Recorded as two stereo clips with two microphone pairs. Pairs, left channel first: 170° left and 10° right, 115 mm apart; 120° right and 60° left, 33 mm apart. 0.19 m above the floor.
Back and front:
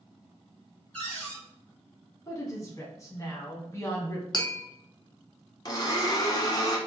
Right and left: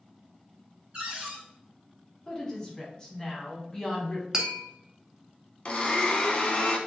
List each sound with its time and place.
0.9 s a cupboard door: 95° left, 1.8 m
2.3 s a woman speaking: 165° right, 1.1 m
4.3 s tapping: 130° left, 0.7 m
5.7 s a blender: 155° right, 0.7 m